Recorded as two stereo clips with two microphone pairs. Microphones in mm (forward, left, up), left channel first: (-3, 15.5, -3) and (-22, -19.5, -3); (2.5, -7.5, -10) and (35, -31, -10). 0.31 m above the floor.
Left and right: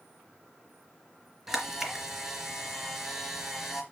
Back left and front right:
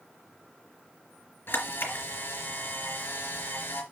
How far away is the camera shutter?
About 2.5 m.